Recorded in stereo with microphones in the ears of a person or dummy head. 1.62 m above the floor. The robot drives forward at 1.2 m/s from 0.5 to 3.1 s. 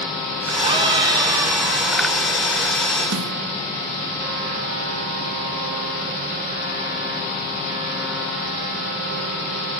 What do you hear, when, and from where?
0.6 s a scream: 25° right (ahead or behind), 2 m; by 2.0 s 15° right (ahead or behind), 3.5 m
3.1 s a snare drum: 70° right (ahead or behind), 1.8 m